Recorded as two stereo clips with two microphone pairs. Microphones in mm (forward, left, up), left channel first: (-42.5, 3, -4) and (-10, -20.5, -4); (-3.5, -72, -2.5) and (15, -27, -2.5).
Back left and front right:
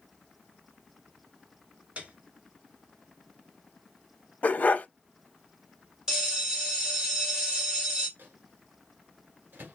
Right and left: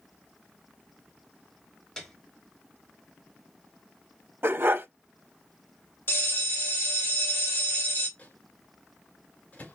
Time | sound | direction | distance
2.0 | a piano | 45° right | 1.0 m
4.4 | a dog barking | 105° left | 0.5 m
6.1 | a bell | 110° right | 1.6 m
8.2 | a microwave | 60° right | 1.8 m